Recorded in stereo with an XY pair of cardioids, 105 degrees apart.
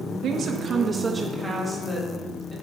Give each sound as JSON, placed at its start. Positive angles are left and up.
{"t": 0.2, "sound": "a woman speaking", "azimuth_deg": -65, "distance_m": 0.7}